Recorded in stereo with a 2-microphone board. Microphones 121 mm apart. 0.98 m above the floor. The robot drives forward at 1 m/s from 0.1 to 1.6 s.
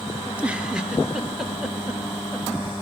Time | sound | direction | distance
0.2 | a giggle | 10° right (ahead or behind) | 1.3 m